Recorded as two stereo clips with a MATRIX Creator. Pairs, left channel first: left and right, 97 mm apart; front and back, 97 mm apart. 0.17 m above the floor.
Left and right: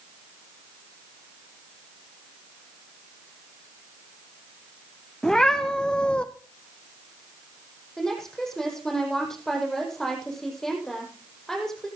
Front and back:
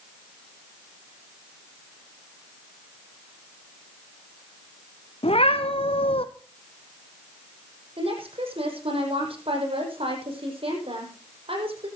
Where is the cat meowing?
5° left, 1.8 m; by 6.2 s 10° left, 1.2 m.